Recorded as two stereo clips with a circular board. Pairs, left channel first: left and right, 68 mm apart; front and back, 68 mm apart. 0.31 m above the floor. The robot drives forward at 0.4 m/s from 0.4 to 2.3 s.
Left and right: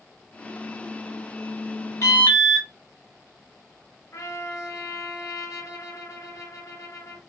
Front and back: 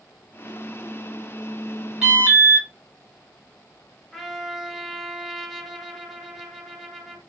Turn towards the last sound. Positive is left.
turn(degrees=90)